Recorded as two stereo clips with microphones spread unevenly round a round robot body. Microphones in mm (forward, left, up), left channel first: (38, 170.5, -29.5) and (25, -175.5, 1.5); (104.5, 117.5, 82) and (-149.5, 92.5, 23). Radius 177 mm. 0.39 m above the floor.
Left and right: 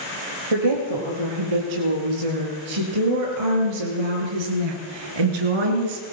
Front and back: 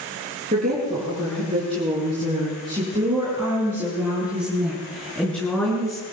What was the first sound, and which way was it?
A woman speaking, 105° right.